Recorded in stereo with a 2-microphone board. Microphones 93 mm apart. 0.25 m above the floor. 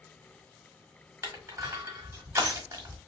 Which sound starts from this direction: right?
Crushing, at 1.2 s.